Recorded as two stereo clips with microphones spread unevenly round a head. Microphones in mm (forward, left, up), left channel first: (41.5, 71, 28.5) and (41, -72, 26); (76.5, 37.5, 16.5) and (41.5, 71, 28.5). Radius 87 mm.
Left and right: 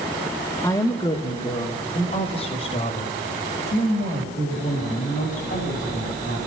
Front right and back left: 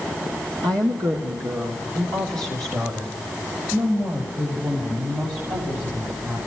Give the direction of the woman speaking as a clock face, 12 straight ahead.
6 o'clock.